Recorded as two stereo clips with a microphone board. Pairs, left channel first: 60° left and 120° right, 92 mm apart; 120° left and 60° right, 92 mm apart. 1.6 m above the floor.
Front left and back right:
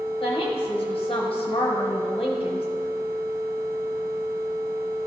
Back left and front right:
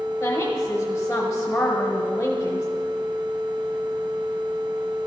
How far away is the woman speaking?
About 1.1 m.